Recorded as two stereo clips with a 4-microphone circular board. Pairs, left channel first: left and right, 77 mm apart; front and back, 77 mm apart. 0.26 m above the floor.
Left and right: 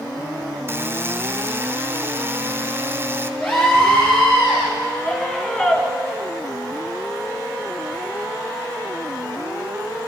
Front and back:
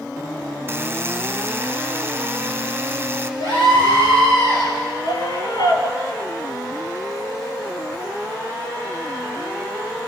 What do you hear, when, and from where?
0.7 s a buzzer: 130° right, 2 m
3.4 s a scream: 20° left, 5.5 m
5.0 s a scream: 15° left, 4.5 m